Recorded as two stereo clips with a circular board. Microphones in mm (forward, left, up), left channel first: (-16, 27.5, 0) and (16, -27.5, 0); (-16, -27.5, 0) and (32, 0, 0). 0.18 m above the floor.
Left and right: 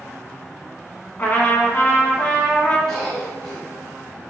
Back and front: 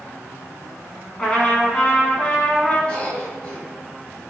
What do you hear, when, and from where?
1.2 s a trumpet: 155° left, 1.0 m
2.9 s a cough: 175° right, 1.6 m